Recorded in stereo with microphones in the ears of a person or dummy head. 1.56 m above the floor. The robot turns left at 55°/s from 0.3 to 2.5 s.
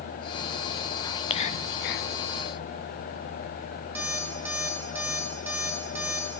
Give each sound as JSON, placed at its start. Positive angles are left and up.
{"t": 1.0, "sound": "whispering", "azimuth_deg": 155, "distance_m": 0.6}
{"t": 4.0, "sound": "an alarm clock", "side_deg": -5, "distance_m": 1.7}